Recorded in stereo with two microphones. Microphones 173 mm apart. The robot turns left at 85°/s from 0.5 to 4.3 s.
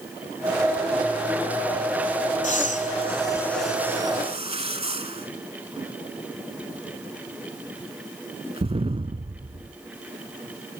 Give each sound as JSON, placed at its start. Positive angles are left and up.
{"t": 2.4, "sound": "breathing", "side_deg": 45, "distance_m": 0.8}